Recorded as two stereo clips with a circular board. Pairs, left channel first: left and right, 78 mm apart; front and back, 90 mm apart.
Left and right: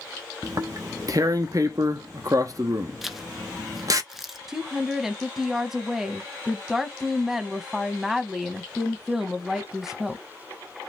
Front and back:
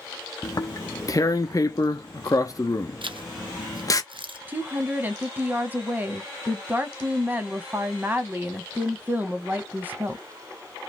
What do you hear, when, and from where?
0.4 s tearing paper: 50° right, 0.6 m
3.0 s a zipper: 175° right, 0.6 m
4.5 s a woman speaking: 165° right, 1.0 m